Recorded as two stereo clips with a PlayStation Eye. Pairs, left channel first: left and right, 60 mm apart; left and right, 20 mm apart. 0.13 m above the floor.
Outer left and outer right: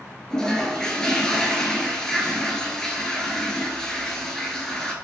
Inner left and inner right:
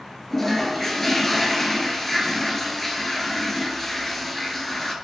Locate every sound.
0.3 s a toilet flushing: 15° left (ahead or behind), 0.5 m